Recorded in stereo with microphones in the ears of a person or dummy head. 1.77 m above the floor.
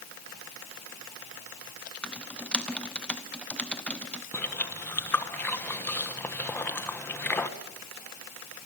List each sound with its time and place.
2.0 s typing on a keyboard: 10° left (ahead or behind), 0.7 m
4.3 s chewing: 15° left (ahead or behind), 1.3 m